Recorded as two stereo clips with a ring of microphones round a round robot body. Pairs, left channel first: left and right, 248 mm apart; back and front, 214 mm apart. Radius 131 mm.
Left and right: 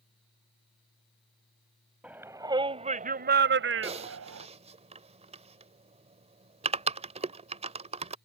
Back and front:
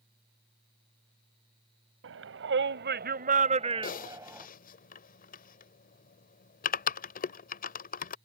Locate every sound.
2.0 s a shout: 5° right; by 4.5 s 80° right
3.8 s typing on a keyboard: 145° right